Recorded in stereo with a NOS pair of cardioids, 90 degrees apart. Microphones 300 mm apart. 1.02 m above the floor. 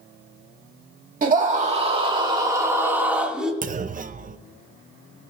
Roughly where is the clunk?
Ahead right.